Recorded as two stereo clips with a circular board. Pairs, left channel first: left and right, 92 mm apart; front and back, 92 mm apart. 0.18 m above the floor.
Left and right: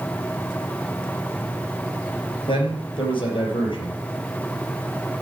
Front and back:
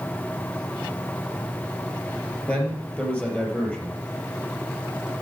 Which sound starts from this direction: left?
A man speaking, at 2.5 s.